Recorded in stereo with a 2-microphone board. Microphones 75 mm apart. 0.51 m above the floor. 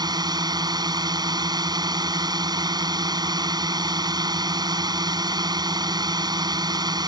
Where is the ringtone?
No ringtone in this recording.